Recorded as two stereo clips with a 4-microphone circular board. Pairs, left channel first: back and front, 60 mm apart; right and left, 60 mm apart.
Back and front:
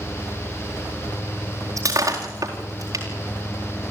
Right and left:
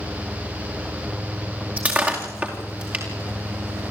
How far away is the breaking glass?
About 4 m.